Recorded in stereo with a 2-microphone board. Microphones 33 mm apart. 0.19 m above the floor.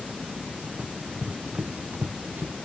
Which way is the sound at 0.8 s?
50° right (ahead or behind).